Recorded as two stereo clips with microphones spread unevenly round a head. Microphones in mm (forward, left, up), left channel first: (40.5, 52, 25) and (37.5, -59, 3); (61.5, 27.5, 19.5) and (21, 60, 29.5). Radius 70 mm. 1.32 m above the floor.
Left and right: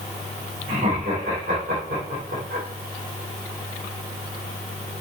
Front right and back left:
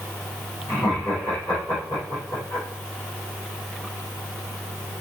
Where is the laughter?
100° right, 5 m.